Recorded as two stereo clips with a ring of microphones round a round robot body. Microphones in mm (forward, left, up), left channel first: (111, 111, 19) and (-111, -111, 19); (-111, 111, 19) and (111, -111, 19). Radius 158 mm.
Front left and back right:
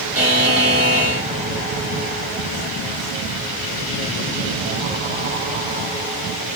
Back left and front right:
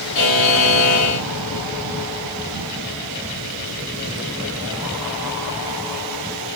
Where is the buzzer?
140° left, 1.4 m.